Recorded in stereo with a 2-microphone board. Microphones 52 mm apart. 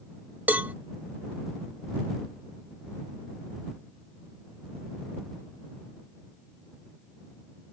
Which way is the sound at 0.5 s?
30° right (ahead or behind).